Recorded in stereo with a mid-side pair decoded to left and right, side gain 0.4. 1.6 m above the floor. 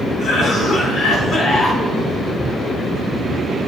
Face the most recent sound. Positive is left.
turn(degrees=70)